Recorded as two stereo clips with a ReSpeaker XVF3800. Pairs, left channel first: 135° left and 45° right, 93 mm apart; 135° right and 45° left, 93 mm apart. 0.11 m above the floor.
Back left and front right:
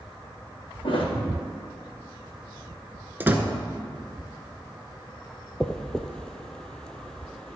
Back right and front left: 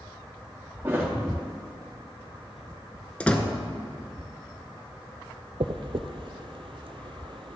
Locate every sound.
0.8 s a thud: 110° left, 3 m
3.2 s a door slam: 80° right, 0.8 m
5.6 s a dropped coin: 55° left, 0.6 m